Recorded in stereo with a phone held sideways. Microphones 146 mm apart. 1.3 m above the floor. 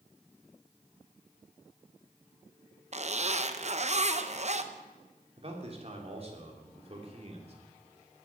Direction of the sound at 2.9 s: 50° right (ahead or behind).